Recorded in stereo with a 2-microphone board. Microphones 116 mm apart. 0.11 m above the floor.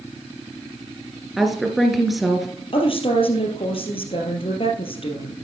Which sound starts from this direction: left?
A woman speaking, at 2.7 s.